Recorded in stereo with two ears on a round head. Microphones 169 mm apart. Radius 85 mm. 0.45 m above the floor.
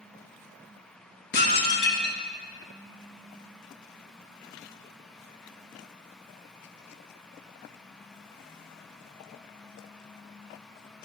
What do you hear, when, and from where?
1.3 s dishes clattering: 60° left (ahead or behind), 1.6 m